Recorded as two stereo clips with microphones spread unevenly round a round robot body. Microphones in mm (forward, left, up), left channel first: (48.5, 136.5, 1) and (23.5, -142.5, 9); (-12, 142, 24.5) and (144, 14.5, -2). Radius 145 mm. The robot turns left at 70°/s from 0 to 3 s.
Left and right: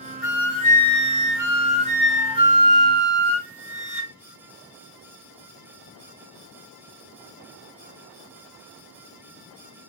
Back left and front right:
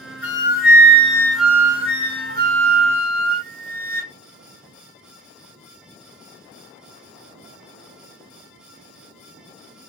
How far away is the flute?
About 0.9 m.